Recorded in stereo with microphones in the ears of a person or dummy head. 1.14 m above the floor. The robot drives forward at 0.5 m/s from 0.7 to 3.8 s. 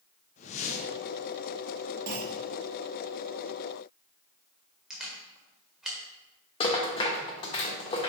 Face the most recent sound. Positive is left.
turn(degrees=30)  # may be behind; listen again after turning